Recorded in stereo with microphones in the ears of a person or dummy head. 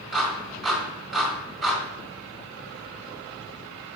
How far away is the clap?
About 1.9 m.